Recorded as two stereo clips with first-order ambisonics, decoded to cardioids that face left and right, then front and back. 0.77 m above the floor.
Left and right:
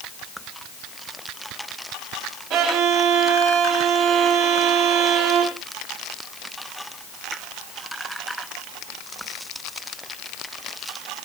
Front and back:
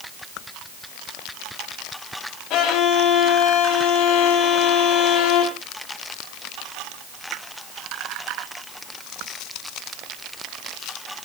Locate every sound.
2.5 s a violin: 50° right, 3 m